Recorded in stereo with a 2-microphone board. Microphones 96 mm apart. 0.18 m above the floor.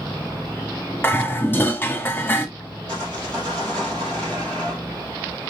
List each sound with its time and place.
1.0 s dishes clattering: 20° left (ahead or behind), 0.8 m
2.9 s sawing: 10° left (ahead or behind), 2.5 m